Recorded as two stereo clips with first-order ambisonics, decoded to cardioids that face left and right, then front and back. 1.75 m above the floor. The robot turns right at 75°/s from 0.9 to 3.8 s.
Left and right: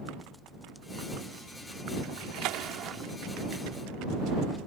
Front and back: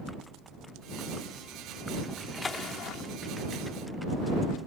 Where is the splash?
100° right; by 3.0 s 25° right.